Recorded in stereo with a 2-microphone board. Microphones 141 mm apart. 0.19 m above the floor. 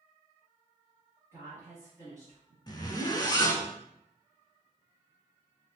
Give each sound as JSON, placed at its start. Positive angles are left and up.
{"t": 1.3, "sound": "a woman speaking", "side_deg": -20, "distance_m": 1.4}
{"t": 2.7, "sound": "a zipper", "side_deg": 30, "distance_m": 0.6}